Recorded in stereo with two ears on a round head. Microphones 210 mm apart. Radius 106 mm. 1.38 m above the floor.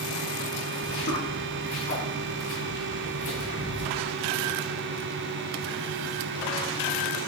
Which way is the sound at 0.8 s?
50° left (ahead or behind).